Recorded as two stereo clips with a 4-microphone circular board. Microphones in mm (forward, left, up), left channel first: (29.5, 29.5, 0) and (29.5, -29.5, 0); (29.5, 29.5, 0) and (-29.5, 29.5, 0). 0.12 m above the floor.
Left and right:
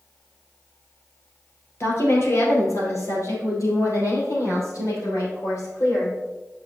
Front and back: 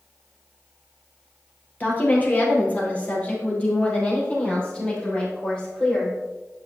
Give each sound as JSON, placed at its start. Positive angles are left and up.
{"t": 1.8, "sound": "a woman speaking", "azimuth_deg": 55, "distance_m": 2.5}